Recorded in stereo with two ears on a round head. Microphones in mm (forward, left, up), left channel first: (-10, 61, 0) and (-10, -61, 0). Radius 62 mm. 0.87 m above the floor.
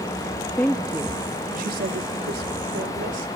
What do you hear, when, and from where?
0.6 s a woman speaking: 15° left (ahead or behind), 1.2 m; by 3.3 s 75° right (ahead or behind), 3.5 m